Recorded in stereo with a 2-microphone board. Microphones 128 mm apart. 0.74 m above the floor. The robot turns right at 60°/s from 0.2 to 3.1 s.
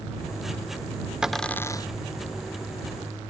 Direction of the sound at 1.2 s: 5° right (ahead or behind).